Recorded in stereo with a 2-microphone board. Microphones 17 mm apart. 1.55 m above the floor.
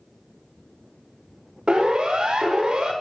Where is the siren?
60° right (ahead or behind), 4 m; by 2.9 s 50° right (ahead or behind), 4.5 m.